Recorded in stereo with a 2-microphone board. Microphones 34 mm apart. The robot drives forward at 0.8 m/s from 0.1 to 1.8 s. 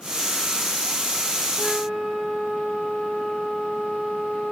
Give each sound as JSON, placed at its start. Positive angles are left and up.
{"t": 1.6, "sound": "a flute", "side_deg": -35, "distance_m": 3.5}